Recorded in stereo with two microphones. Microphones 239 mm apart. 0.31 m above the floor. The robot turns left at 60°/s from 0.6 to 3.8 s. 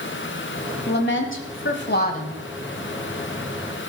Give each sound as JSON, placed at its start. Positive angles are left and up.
{"t": 0.9, "sound": "a woman speaking", "azimuth_deg": 125, "distance_m": 1.6}